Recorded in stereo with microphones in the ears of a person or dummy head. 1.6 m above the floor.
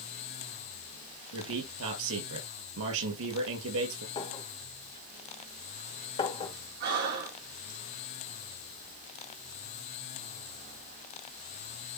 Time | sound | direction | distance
1.3 | a man speaking | 85° right | 6 m
4.2 | a clink | 30° left (ahead or behind) | 2 m
6.8 | breathing | 45° right (ahead or behind) | 2.0 m